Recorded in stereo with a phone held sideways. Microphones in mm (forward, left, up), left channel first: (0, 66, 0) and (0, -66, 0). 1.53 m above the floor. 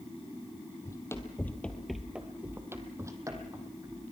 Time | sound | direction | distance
0.8 | running footsteps | 20° left (ahead or behind) | 2 m